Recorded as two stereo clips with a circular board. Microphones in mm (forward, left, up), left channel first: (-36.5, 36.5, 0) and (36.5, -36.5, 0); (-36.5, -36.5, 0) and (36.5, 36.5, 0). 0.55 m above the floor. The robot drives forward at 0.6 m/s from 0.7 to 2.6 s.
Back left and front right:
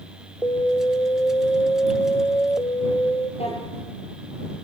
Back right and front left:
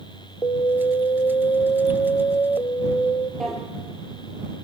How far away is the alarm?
About 0.7 m.